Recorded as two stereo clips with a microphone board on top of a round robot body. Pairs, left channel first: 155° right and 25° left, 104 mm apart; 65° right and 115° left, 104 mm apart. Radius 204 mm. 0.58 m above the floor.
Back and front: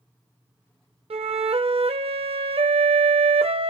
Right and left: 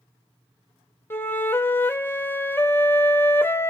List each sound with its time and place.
1.1 s a flute: straight ahead, 0.8 m